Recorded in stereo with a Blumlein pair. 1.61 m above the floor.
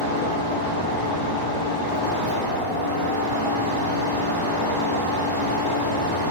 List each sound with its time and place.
0.0 s a fan: 65° right, 0.7 m